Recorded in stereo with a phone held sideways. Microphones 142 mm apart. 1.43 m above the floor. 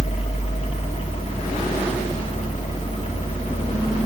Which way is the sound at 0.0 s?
50° left (ahead or behind).